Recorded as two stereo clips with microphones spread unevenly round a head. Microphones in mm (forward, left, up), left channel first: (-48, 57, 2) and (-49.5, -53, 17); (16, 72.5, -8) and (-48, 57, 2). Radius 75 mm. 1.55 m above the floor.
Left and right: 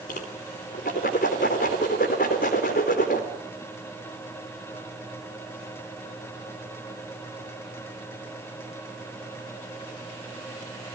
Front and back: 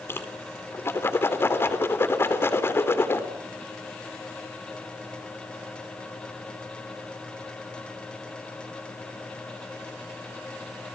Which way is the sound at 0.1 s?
70° left.